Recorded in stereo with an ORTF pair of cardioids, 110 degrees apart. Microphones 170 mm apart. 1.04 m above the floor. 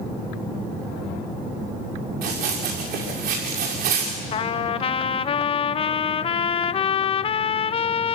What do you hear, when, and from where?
2.2 s running footsteps: 70° right, 6.5 m
4.3 s a trumpet: 35° left, 0.6 m